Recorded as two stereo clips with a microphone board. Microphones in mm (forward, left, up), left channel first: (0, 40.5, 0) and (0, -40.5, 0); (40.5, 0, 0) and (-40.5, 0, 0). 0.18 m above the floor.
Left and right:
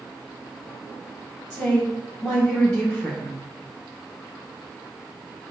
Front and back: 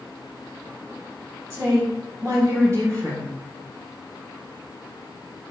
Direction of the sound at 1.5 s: 160° left.